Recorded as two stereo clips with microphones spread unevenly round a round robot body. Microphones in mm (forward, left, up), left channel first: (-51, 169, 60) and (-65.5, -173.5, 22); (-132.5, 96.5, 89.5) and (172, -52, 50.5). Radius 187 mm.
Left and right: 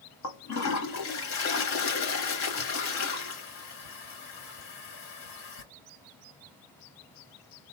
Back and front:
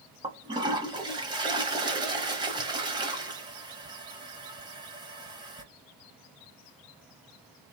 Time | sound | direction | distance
0.2 | a toilet flushing | 55° left | 1.1 m